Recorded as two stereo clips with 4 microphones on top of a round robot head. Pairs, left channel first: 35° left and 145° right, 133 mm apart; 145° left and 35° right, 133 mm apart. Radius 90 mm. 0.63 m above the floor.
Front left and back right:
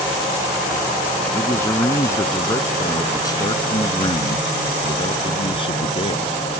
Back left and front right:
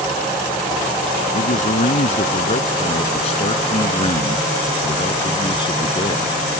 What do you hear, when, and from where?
1.3 s a man speaking: 110° left; by 6.3 s 85° left